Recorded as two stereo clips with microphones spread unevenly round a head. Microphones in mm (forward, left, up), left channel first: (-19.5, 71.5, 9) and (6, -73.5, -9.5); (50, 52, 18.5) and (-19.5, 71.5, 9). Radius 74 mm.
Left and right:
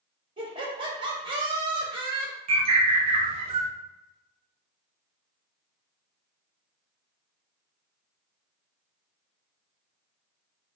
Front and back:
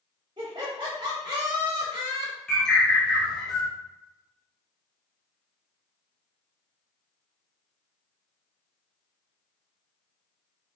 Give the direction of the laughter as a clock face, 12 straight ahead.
5 o'clock.